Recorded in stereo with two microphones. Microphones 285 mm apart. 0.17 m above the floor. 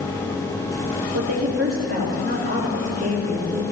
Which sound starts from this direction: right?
A woman speaking, at 1.1 s.